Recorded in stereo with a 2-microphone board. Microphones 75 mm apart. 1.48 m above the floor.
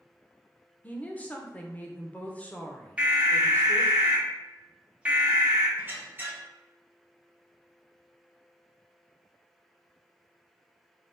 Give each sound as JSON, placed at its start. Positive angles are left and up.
{"t": 0.8, "sound": "a woman speaking", "side_deg": 20, "distance_m": 0.6}
{"t": 3.0, "sound": "an alarm", "side_deg": -15, "distance_m": 0.9}
{"t": 5.8, "sound": "a squeak", "side_deg": -25, "distance_m": 0.7}